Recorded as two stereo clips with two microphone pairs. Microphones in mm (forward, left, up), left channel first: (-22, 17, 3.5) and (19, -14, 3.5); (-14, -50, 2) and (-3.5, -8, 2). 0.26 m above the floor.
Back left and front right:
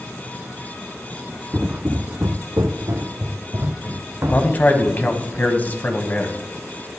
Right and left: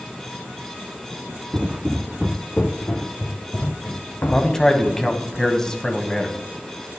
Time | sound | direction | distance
1.5 | footsteps | 25° left | 1.0 m
4.3 | a man speaking | 175° right | 1.4 m